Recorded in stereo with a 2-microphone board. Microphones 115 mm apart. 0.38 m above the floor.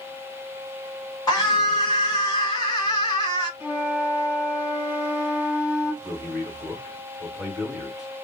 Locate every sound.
1.3 s a scream: 30° left (ahead or behind), 1.8 m
3.6 s a flute: 15° right (ahead or behind), 1.3 m
6.0 s a man speaking: 5° right (ahead or behind), 2 m